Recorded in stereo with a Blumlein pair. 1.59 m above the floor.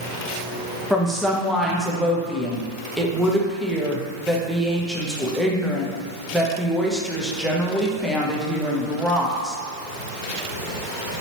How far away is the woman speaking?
About 0.6 m.